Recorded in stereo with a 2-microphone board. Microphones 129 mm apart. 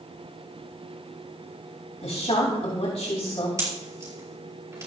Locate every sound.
2.0 s a woman speaking: 65° left (ahead or behind), 3 m
3.6 s a pop: 25° right (ahead or behind), 5.5 m